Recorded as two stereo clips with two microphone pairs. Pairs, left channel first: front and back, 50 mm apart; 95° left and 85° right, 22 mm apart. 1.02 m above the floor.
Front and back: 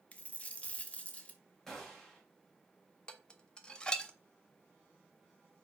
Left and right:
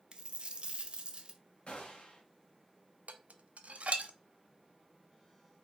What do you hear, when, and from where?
0.1 s a dropped coin: 55° right, 0.6 m
1.7 s a gunshot: 85° left, 1.4 m
3.1 s dishes clattering: 70° right, 0.5 m